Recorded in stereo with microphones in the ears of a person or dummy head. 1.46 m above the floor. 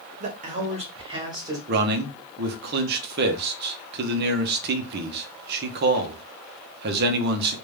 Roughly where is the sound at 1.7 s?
Right.